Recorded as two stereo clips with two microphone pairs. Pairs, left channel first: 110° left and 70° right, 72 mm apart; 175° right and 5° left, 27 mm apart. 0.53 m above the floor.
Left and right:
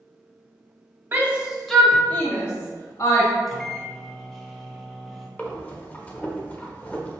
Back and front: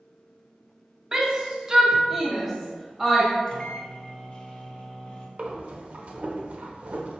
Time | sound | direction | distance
1.1 | a shout | 35° right | 0.8 m
3.5 | a microwave | 165° right | 0.5 m
5.4 | breathing | 45° left | 0.6 m